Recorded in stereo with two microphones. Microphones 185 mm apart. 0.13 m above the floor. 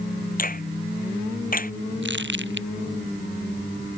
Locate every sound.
0.4 s a finger snap: 45° left (ahead or behind)
2.0 s crumpling: 70° right (ahead or behind)